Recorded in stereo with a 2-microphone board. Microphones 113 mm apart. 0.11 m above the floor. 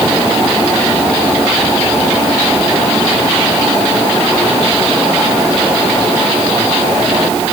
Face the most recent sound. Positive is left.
No sound to turn to.